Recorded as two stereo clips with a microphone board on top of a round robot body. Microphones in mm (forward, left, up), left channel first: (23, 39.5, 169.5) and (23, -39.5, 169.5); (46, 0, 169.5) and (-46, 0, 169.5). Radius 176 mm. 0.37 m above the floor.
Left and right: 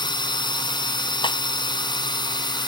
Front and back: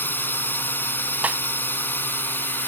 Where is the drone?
70° left.